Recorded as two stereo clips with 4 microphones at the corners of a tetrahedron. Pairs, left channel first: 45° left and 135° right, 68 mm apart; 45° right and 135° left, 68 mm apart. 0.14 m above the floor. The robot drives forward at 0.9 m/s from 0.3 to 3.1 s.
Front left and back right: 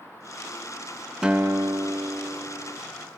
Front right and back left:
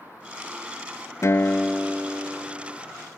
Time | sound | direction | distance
1.2 | a guitar | 60° right | 0.5 m